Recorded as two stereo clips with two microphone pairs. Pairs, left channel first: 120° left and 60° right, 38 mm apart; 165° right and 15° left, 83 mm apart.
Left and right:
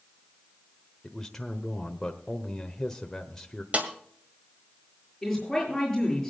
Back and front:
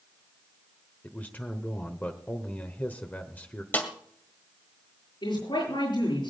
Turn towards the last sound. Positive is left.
turn(degrees=-160)